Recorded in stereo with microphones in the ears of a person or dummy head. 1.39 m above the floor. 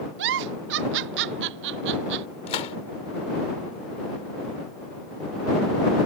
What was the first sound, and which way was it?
A giggle, 60° right (ahead or behind).